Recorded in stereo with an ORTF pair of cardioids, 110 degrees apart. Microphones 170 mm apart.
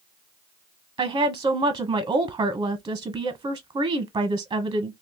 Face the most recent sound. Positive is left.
turn(degrees=-30)